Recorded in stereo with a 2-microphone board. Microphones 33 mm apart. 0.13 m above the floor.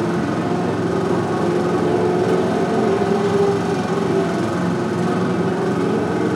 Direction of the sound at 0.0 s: Centre (ahead or behind).